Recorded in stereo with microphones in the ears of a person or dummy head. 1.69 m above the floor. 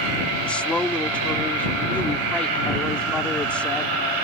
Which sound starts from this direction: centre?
A woman speaking, at 0.4 s.